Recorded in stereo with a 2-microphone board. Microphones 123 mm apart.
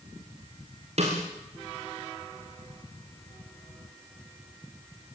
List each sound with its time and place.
1.0 s a snare drum: 60° right (ahead or behind), 7.5 m